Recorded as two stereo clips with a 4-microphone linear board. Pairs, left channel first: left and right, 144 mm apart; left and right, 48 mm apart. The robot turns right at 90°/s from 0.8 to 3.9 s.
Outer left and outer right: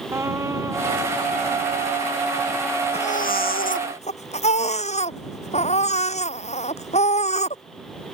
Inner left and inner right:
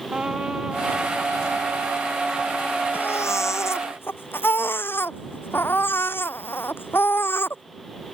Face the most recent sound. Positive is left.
turn(degrees=130)